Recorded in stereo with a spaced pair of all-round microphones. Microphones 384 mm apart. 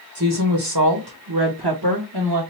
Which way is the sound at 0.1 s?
45° right (ahead or behind).